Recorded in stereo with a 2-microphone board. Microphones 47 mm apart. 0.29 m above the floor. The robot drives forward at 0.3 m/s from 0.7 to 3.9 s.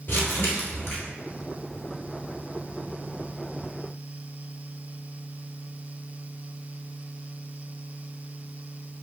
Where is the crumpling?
55° left (ahead or behind), 1.2 m.